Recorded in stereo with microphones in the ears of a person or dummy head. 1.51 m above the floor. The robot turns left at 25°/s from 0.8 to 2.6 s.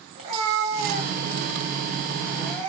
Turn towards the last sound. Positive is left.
turn(degrees=170)